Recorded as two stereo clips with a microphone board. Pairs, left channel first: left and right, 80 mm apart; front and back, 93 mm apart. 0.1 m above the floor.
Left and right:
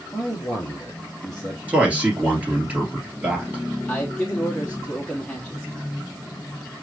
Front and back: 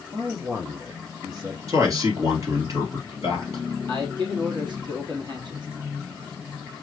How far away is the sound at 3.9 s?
About 2 m.